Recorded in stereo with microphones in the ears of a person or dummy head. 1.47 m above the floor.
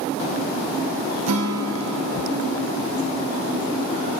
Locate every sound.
1.3 s a guitar: 85° right, 0.5 m